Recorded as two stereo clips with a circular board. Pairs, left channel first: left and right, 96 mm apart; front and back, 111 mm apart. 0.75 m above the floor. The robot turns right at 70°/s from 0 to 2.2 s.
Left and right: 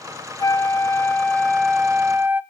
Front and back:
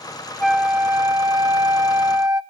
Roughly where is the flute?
Left.